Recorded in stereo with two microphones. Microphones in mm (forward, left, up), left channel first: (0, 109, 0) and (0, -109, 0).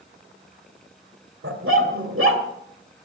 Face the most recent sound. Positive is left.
turn(degrees=-65)  # may be behind; listen again after turning